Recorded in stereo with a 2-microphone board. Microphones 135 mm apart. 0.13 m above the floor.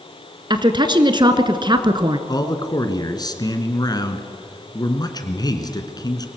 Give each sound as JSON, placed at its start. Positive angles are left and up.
{"t": 0.5, "sound": "a woman speaking", "side_deg": -35, "distance_m": 1.3}
{"t": 2.3, "sound": "a man speaking", "side_deg": 30, "distance_m": 1.7}